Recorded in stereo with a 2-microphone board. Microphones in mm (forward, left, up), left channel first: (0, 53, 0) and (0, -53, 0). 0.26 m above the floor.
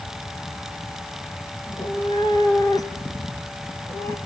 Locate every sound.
1.6 s a cat meowing: 50° left (ahead or behind), 2 m; by 4.2 s 20° left (ahead or behind), 2.5 m